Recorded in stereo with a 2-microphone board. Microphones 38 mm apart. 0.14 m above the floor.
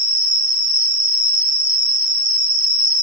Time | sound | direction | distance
0.0 | an insect | 25° right (ahead or behind) | 2 m